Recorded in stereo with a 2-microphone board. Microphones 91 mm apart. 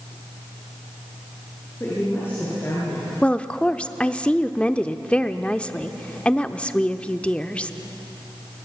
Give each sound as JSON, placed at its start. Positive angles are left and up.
{"t": 1.8, "sound": "a woman speaking", "side_deg": 30, "distance_m": 7.0}
{"t": 3.2, "sound": "a woman speaking", "side_deg": 15, "distance_m": 0.7}